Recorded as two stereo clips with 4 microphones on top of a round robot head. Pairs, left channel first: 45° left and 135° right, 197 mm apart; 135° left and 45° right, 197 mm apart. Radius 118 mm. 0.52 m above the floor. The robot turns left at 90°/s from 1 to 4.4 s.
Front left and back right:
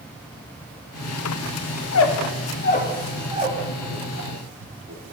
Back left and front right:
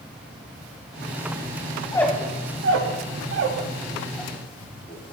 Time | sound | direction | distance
1.8 | a squeak | 70° left | 0.6 m